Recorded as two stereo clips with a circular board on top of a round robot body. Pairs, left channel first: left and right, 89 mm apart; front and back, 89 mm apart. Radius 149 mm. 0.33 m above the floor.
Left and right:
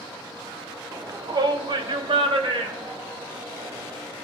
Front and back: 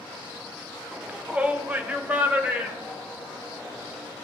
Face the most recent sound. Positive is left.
turn(degrees=-105)